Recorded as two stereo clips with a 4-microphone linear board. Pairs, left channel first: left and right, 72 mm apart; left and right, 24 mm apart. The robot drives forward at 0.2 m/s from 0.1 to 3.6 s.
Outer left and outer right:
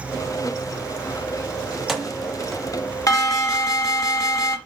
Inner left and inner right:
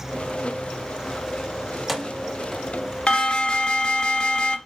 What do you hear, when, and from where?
1.7 s keys jangling: centre (ahead or behind), 1.0 m
3.1 s an alarm: 50° left (ahead or behind), 1.4 m; by 4.6 s 45° left (ahead or behind), 1.4 m